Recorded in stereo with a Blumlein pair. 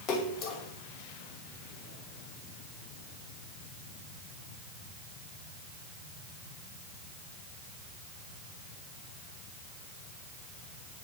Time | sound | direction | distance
0.1 | a splash | 35° left | 1.0 m